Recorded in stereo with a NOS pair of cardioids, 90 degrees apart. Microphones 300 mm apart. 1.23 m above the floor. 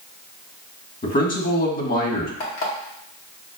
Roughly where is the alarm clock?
Ahead left.